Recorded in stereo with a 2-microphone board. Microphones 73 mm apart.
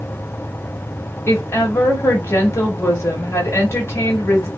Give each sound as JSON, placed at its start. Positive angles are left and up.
{"t": 1.3, "sound": "a woman speaking", "side_deg": 35, "distance_m": 1.3}